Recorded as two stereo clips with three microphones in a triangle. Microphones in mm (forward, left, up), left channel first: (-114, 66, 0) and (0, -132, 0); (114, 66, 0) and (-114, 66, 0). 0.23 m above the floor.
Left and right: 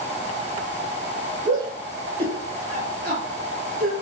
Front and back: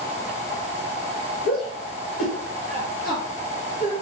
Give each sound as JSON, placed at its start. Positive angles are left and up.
{"t": 1.4, "sound": "a shout", "azimuth_deg": -5, "distance_m": 3.0}